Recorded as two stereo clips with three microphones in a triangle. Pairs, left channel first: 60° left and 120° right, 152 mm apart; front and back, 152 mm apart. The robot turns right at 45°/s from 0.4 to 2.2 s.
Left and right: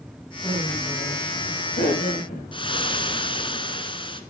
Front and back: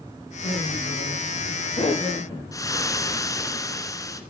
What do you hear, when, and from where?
0.4 s laughter: 5° right, 9.5 m; by 2.4 s 75° left, 9.5 m
2.5 s frying: 50° left, 1.6 m